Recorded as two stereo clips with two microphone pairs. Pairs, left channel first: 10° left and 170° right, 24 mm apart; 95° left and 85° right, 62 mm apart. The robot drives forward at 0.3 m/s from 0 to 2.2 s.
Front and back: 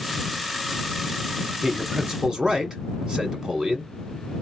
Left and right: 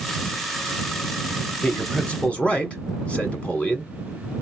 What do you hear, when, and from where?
1.6 s a man speaking: 145° left, 1.2 m; by 3.9 s 155° left, 1.3 m